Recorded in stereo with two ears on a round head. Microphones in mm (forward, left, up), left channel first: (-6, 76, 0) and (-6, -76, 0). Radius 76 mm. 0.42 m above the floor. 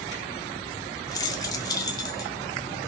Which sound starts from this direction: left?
Keys jangling, at 1.1 s.